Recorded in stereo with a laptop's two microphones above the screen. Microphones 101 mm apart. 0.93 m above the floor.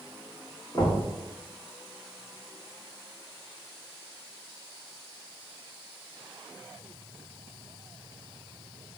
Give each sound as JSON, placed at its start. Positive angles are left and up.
{"t": 0.7, "sound": "knocking", "side_deg": 40, "distance_m": 1.4}